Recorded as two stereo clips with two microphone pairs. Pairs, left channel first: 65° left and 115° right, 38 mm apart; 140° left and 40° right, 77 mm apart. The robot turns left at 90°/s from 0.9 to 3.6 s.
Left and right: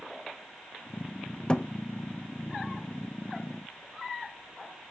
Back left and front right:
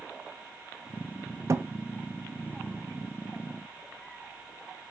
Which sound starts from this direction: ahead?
A thud, at 1.5 s.